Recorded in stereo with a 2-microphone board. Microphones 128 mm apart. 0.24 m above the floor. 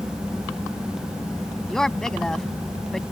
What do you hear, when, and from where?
1.7 s a woman speaking: 5° left (ahead or behind)